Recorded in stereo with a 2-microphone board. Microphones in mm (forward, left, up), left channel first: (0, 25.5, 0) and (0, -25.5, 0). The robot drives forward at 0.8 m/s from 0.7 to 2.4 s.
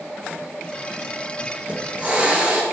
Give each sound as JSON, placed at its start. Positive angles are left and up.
{"t": 1.6, "sound": "a hiss", "side_deg": -30, "distance_m": 2.0}